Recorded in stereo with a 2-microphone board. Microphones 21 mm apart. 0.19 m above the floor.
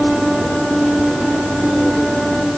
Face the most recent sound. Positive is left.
No sound to turn to.